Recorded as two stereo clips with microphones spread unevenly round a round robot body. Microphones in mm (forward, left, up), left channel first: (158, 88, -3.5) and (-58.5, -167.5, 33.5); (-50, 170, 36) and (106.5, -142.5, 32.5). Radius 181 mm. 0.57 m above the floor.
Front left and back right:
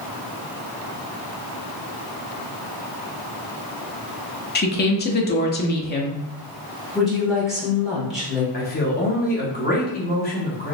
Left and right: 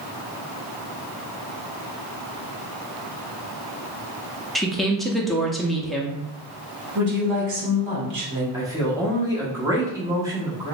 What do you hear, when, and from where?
4.5 s a woman speaking: 25° left, 0.7 m
7.0 s a woman speaking: 40° right, 1.7 m
8.5 s a man speaking: 10° left, 1.2 m